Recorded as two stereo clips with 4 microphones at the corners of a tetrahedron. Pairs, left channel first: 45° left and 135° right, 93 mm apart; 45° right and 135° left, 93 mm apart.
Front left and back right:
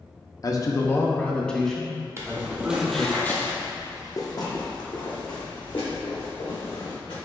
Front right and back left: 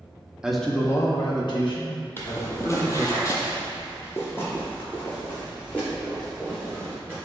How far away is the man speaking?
About 0.6 m.